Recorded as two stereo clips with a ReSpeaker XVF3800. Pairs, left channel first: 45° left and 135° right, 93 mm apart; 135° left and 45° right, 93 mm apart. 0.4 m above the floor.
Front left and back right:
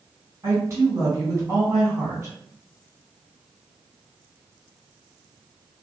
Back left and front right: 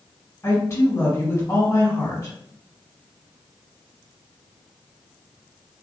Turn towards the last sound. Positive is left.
turn(degrees=180)